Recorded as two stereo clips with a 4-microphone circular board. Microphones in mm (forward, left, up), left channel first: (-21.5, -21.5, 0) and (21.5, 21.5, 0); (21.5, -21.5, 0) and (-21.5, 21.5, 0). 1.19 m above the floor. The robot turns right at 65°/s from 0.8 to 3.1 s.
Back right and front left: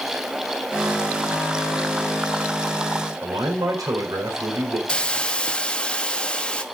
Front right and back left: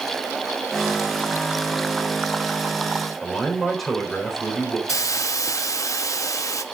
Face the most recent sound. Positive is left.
turn(degrees=-60)